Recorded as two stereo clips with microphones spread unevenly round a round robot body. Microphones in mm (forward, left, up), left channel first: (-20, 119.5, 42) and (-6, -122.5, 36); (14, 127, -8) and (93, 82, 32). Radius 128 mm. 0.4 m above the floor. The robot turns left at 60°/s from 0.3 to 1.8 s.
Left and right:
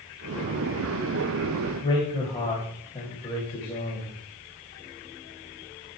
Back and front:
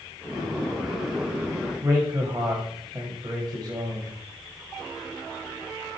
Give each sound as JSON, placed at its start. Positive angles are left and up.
{"t": 1.8, "sound": "a man speaking", "azimuth_deg": 25, "distance_m": 2.5}